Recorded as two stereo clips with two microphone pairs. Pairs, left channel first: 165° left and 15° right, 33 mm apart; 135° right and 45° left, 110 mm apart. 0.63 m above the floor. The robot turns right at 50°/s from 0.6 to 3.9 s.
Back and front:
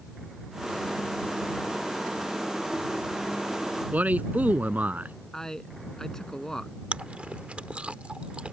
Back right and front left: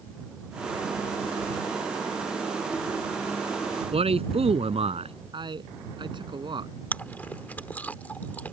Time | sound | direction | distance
3.9 | a man speaking | 15° left | ?
5.3 | a man speaking | 90° left | ?
6.9 | chewing | 65° right | ?